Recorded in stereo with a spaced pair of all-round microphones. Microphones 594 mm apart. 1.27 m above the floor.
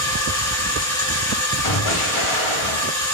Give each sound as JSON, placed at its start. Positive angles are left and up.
{"t": 0.0, "sound": "a machine running", "side_deg": 5, "distance_m": 1.5}
{"t": 1.6, "sound": "an explosion", "side_deg": 55, "distance_m": 1.0}